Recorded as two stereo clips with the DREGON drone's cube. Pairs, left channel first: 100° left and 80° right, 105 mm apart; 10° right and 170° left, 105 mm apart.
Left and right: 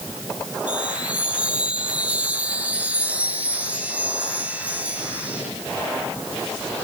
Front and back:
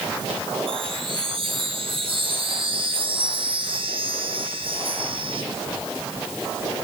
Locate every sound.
0.7 s a chime: 155° right, 6 m